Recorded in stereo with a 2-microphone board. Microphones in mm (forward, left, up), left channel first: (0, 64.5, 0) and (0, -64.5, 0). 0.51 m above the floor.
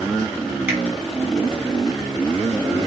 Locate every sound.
0.7 s a finger snap: 15° right (ahead or behind), 2 m